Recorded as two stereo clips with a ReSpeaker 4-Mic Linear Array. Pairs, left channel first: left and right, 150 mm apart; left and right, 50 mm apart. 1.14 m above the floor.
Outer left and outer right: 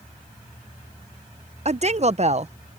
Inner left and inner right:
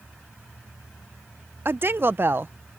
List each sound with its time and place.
1.6 s a woman speaking: 45° right (ahead or behind)